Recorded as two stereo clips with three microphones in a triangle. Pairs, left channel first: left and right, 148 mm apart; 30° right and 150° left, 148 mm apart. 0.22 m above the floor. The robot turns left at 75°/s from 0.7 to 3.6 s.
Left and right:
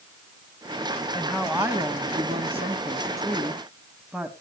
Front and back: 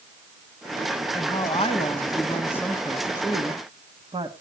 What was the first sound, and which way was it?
A woman speaking, 10° left.